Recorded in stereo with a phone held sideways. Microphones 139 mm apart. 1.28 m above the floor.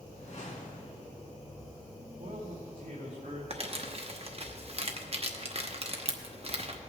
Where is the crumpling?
45° right (ahead or behind), 0.9 m.